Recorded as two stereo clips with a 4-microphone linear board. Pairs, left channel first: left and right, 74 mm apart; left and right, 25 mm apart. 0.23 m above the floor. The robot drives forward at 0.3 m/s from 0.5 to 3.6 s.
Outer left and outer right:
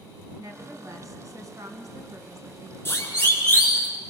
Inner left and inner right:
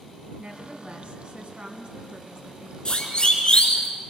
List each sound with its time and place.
0.4 s a woman speaking: 55° right (ahead or behind), 2 m; by 2.8 s 50° right (ahead or behind), 2 m
2.9 s a siren: 35° left (ahead or behind), 4.5 m; by 3.9 s 25° left (ahead or behind), 5 m